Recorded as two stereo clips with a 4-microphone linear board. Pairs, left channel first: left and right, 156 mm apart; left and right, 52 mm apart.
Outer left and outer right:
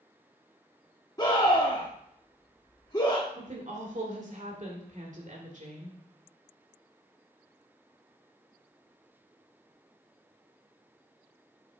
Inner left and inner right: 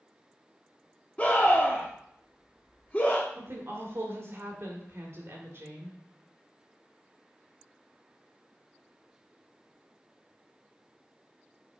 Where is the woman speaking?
50° right (ahead or behind), 2 m.